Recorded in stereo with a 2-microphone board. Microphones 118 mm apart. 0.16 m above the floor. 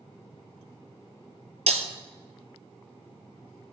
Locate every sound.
1.7 s breaking glass: 75° right (ahead or behind), 1.1 m